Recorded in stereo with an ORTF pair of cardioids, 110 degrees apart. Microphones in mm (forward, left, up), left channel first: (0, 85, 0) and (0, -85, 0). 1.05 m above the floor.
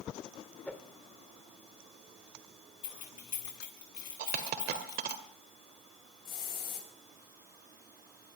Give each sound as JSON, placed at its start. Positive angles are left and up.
{"t": 0.7, "sound": "a whoosh", "azimuth_deg": 10, "distance_m": 1.8}
{"t": 2.8, "sound": "keys jangling", "azimuth_deg": 50, "distance_m": 6.0}
{"t": 4.2, "sound": "a dropped coin", "azimuth_deg": -70, "distance_m": 1.9}
{"t": 6.2, "sound": "a hiss", "azimuth_deg": 65, "distance_m": 7.0}